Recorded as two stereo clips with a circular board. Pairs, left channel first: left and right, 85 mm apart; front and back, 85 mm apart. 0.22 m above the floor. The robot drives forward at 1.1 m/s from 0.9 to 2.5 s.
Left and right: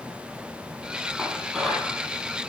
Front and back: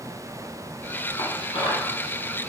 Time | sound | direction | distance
1.2 | dishes clattering | straight ahead | 4 m